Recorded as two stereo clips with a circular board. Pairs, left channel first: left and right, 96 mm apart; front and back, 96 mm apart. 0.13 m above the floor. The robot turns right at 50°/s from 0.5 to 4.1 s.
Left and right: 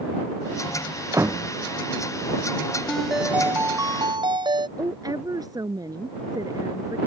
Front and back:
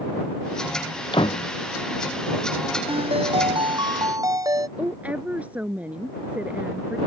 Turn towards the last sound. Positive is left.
turn(degrees=-110)